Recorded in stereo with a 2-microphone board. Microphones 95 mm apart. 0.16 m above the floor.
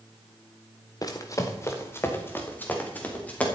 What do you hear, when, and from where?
1.0 s running footsteps: 40° left (ahead or behind), 1.7 m; by 3.5 s 15° left (ahead or behind), 3.5 m